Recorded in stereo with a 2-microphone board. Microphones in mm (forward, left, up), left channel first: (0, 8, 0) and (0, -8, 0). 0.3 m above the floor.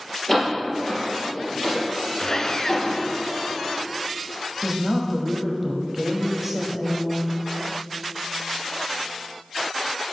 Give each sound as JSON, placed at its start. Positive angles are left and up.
{"t": 0.3, "sound": "a door slam", "side_deg": 5, "distance_m": 4.0}
{"t": 2.2, "sound": "sawing", "side_deg": 35, "distance_m": 0.7}
{"t": 4.6, "sound": "a woman speaking", "side_deg": -10, "distance_m": 1.6}